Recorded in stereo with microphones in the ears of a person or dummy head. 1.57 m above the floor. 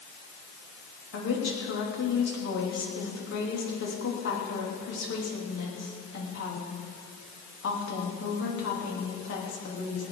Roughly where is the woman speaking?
Left.